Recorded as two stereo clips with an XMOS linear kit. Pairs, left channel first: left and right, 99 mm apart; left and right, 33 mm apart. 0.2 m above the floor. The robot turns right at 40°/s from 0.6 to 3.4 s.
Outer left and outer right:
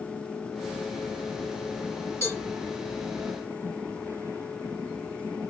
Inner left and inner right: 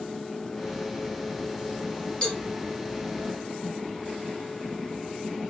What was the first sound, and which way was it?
A cowbell, 30° left (ahead or behind).